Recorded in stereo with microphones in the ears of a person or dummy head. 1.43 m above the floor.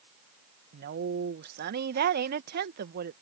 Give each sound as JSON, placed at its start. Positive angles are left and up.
{"t": 0.7, "sound": "a woman speaking", "side_deg": -60}